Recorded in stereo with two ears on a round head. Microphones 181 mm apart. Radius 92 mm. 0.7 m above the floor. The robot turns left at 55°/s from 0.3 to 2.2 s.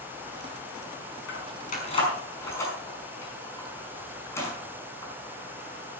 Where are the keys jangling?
65° left (ahead or behind), 5.5 m; by 5.1 s 15° left (ahead or behind), 5.5 m.